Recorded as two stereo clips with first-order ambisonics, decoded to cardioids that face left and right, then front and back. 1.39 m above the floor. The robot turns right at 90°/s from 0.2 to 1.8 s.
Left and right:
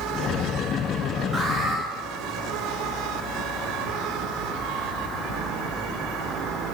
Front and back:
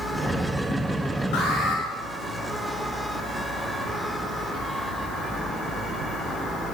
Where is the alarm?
15° right, 3 m; by 1.8 s 25° left, 3 m.